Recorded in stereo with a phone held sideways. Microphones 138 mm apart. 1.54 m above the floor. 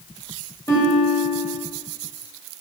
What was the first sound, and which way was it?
A guitar, 25° left (ahead or behind).